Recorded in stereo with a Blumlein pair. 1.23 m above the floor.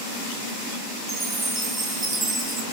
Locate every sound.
1.1 s a chime: 10° right, 2.5 m